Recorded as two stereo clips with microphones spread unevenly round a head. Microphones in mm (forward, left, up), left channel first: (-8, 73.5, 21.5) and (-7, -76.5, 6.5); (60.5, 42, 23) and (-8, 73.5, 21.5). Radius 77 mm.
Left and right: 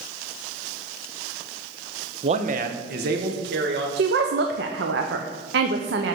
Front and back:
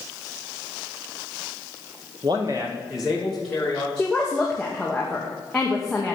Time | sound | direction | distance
2.2 | a man speaking | 145° right | 0.8 m
4.0 | a woman speaking | 110° right | 0.9 m